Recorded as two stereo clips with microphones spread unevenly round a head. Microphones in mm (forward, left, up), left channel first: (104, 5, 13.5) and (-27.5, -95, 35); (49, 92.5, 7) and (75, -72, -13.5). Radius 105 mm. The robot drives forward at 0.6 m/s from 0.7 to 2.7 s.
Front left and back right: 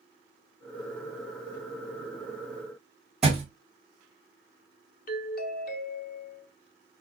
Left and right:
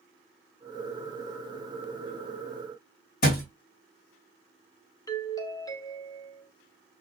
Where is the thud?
135° left, 2 m.